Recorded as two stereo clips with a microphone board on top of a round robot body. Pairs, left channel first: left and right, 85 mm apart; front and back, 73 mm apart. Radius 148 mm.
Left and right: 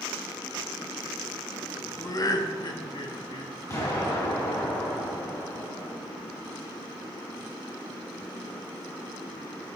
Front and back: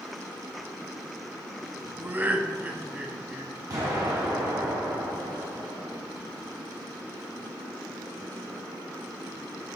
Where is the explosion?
140° left, 4 m.